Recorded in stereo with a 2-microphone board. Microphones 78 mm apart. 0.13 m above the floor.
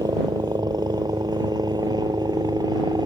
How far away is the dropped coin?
No dropped coin in this recording.